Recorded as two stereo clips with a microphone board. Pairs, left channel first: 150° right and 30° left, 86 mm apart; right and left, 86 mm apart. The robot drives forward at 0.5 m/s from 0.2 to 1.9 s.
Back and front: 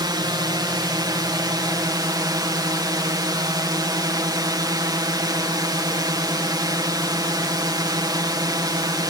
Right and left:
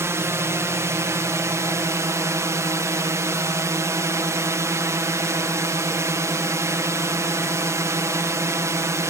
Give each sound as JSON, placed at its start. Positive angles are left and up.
{"t": 0.0, "sound": "a drone", "azimuth_deg": 40}